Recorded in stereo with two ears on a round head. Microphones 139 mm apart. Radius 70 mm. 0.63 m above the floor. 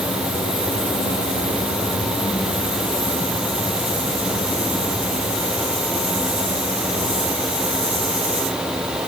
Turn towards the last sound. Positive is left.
No sound to turn to.